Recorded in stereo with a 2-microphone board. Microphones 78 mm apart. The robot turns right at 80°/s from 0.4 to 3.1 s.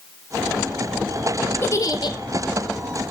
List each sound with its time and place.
1.6 s a giggle: 35° left, 1.4 m; by 2.2 s 80° left, 1.4 m